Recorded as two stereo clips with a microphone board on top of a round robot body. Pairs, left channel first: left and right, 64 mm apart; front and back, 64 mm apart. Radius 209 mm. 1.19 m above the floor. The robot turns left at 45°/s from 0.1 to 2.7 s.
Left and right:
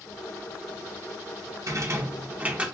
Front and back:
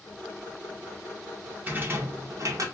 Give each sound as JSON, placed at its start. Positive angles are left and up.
{"t": 1.7, "sound": "a rattle", "azimuth_deg": -120, "distance_m": 1.0}